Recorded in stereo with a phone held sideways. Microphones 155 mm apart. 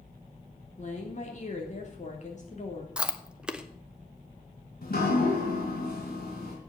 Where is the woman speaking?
50° left (ahead or behind), 3 m.